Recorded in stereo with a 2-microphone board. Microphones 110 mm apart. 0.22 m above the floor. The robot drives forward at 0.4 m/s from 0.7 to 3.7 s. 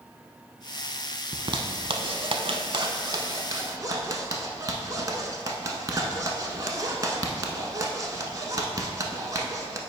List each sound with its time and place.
1.3 s a zipper: 45° right (ahead or behind), 0.6 m; by 9.8 s 35° right (ahead or behind), 0.8 m